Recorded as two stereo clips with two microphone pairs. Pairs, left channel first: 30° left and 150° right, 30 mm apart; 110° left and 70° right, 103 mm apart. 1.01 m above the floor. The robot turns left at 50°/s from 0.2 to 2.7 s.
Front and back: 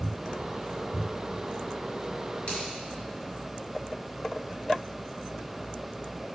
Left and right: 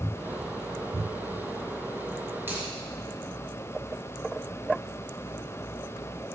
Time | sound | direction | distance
2.5 | a finger snap | straight ahead | 3.5 m